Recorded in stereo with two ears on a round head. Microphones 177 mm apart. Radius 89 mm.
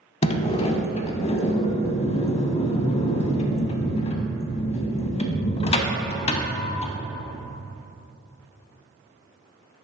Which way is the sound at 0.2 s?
30° left (ahead or behind).